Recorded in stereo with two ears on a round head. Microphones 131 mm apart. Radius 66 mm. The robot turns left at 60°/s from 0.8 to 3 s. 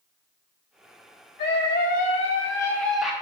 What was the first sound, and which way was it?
A scream, 95° left.